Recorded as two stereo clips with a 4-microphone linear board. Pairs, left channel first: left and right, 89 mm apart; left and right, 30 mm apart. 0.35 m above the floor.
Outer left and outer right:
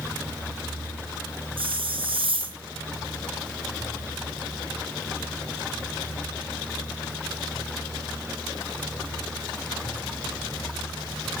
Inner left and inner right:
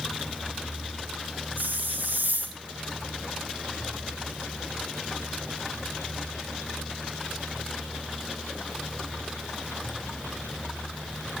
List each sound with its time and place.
1.6 s a hiss: 75° right (ahead or behind), 3.5 m